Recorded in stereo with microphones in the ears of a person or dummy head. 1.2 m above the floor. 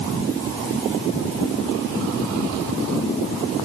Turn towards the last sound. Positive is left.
No sound to turn to.